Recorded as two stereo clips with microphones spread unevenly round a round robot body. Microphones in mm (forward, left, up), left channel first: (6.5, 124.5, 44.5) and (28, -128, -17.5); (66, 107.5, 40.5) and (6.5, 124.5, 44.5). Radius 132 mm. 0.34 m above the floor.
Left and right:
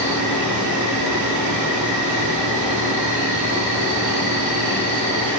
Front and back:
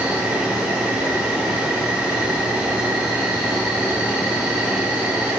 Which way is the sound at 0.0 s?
80° right.